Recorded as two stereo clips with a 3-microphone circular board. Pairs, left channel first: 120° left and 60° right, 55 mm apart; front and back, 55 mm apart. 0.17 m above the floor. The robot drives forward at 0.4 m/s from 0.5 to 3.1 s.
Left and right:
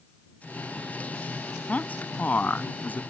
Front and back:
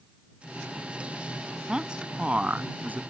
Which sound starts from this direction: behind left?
A man speaking, at 1.7 s.